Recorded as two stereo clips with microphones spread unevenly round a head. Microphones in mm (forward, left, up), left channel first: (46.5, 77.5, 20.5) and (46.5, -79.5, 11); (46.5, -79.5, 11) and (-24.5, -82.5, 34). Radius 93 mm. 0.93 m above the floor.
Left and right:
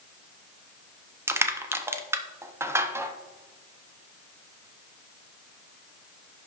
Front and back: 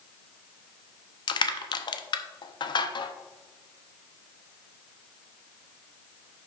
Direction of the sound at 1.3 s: 15° right.